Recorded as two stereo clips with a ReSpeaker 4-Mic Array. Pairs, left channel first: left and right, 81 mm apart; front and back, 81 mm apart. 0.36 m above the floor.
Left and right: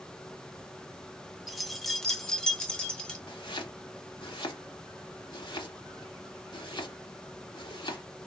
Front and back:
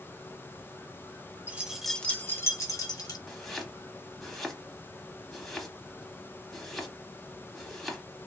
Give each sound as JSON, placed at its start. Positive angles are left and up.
{"t": 1.5, "sound": "keys jangling", "azimuth_deg": -175, "distance_m": 0.5}
{"t": 3.3, "sound": "chopping", "azimuth_deg": 85, "distance_m": 0.7}